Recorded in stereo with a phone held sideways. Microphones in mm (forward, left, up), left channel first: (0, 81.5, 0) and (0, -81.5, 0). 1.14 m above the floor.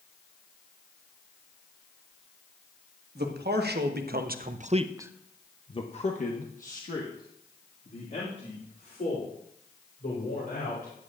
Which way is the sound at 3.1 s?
85° right.